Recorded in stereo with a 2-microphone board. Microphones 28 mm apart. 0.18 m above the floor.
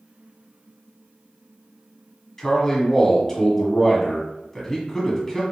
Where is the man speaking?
15° left (ahead or behind), 1.0 m.